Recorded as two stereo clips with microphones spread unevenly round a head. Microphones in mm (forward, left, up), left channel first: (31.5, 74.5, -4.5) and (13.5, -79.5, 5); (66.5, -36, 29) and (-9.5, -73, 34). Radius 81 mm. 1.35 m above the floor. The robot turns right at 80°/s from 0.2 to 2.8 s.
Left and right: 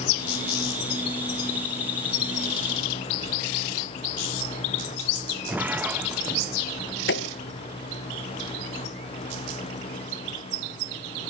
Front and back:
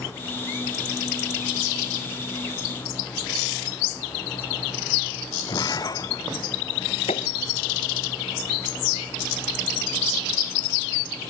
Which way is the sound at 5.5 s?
15° right.